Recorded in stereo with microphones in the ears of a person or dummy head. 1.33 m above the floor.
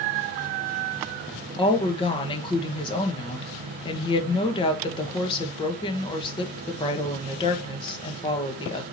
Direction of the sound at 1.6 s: 25° left (ahead or behind).